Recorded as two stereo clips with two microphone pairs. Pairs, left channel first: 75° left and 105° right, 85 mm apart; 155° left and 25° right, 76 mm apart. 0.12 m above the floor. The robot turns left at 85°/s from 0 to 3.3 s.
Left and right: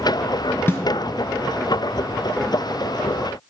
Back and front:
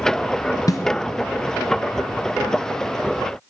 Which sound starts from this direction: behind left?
A snare drum, at 0.7 s.